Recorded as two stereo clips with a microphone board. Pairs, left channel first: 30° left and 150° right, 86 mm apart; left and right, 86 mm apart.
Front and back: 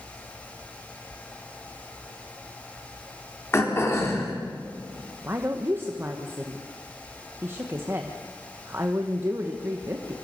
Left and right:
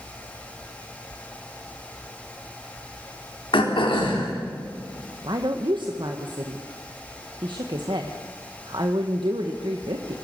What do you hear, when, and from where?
3.5 s throat clearing: 90° left, 3.5 m
5.2 s a woman speaking: 90° right, 1.3 m